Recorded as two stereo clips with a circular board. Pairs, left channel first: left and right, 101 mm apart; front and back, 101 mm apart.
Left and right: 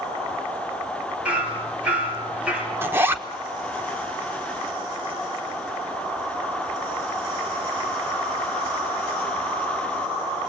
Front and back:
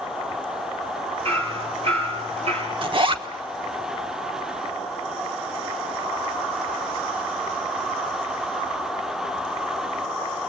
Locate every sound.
1.2 s hammering: 170° right, 3.5 m
2.8 s a zipper: 155° right, 1.2 m